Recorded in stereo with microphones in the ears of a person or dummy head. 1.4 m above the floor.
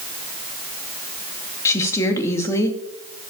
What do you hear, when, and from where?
1.6 s a woman speaking: 20° left (ahead or behind), 2.5 m